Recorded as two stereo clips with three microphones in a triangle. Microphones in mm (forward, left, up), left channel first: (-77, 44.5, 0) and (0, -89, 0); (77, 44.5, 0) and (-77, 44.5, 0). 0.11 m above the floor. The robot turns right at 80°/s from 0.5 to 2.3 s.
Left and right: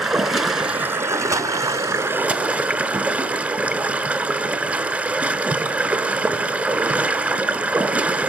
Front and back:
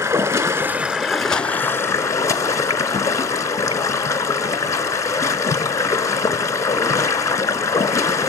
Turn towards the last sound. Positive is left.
turn(degrees=0)